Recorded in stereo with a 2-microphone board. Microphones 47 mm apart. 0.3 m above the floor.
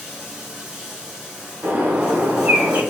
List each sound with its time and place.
0.0 s running water: 20° right (ahead or behind), 1.3 m
1.6 s a bird: 50° right (ahead or behind), 1.0 m